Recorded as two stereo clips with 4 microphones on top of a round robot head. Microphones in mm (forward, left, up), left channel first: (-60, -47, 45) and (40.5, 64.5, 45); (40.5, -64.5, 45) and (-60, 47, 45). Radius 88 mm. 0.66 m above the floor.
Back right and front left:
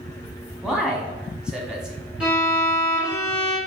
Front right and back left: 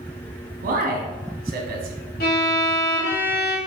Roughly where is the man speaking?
Behind left.